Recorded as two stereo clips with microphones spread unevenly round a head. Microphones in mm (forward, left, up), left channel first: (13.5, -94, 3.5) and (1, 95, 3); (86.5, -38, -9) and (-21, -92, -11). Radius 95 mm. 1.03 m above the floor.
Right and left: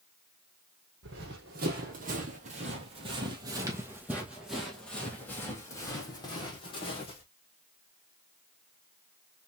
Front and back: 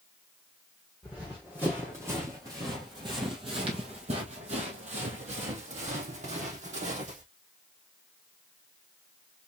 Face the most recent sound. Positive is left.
turn(degrees=-145)